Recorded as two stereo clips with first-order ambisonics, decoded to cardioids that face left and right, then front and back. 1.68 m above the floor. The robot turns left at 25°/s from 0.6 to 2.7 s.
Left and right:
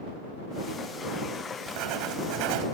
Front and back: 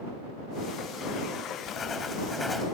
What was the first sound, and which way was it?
Writing, 60° right.